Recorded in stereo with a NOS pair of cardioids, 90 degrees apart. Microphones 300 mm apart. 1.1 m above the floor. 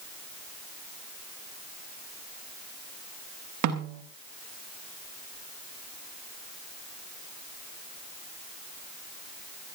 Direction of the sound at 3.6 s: 65° right.